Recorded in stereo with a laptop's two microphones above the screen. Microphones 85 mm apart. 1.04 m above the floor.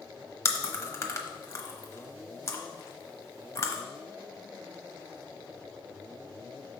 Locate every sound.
0.5 s chewing: 35° left (ahead or behind), 1.0 m